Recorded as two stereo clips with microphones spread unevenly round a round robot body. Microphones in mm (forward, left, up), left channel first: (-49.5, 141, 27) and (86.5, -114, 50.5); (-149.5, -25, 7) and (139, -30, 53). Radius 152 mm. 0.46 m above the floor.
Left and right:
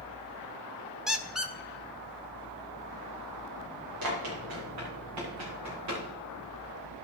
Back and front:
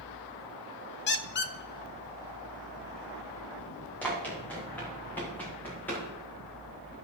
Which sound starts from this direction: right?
Running footsteps, at 4.0 s.